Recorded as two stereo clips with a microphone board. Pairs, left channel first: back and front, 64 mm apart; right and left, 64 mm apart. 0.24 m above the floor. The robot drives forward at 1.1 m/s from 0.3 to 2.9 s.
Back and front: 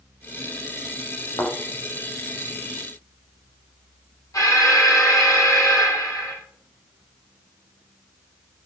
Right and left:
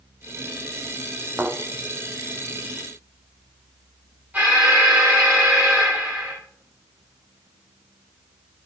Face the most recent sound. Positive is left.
turn(degrees=155)